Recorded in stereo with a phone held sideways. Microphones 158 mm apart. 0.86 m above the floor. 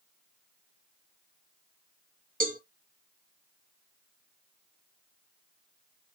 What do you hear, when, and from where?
2.4 s a cowbell: 60° right (ahead or behind), 1.4 m